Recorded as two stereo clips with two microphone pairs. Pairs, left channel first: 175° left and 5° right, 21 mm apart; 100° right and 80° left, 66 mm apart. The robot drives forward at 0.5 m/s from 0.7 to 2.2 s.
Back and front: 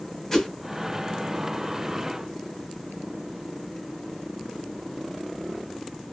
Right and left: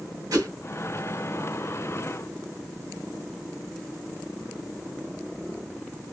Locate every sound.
0.3 s a whoosh: 105° left, 2 m